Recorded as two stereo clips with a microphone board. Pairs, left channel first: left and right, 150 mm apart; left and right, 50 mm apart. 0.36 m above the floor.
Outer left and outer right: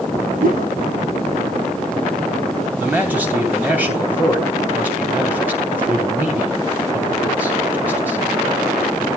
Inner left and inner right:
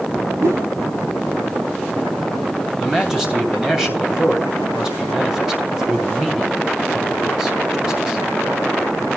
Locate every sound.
0.4 s a whoosh: 65° right (ahead or behind), 1.6 m
2.8 s a man speaking: 10° right (ahead or behind), 2.5 m